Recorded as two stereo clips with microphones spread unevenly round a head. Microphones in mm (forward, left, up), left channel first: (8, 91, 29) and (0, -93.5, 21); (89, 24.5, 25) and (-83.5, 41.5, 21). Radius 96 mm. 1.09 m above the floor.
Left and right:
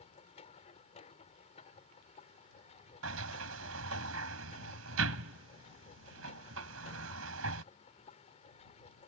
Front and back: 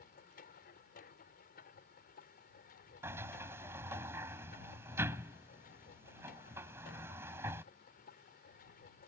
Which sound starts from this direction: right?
A sliding door, at 3.0 s.